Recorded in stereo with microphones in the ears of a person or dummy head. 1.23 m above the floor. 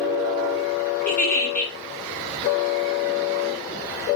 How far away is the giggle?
About 1.3 m.